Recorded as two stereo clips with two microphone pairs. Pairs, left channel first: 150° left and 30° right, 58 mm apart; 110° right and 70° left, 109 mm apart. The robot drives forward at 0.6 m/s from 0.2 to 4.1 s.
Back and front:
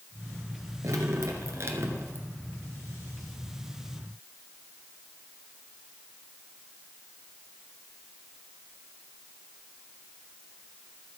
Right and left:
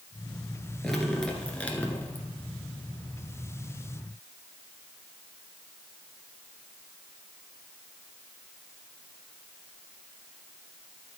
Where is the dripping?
25° right, 1.8 m; by 2.3 s 50° right, 1.2 m.